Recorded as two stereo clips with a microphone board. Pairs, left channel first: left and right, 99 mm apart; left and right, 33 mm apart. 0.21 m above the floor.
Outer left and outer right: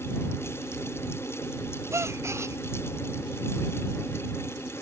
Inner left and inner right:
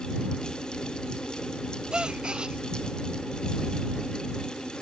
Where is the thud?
No thud in this recording.